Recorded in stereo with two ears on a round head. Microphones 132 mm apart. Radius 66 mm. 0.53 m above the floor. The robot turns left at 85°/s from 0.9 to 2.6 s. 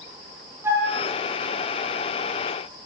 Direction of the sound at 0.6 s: 15° right (ahead or behind).